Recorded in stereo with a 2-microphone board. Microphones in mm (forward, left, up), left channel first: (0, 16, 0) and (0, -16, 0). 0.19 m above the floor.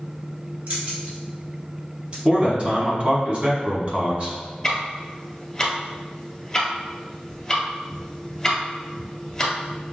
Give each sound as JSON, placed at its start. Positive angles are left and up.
{"t": 0.7, "sound": "keys jangling", "side_deg": -55, "distance_m": 1.6}
{"t": 2.2, "sound": "a man speaking", "side_deg": -40, "distance_m": 1.5}
{"t": 4.6, "sound": "ticking", "side_deg": 20, "distance_m": 1.5}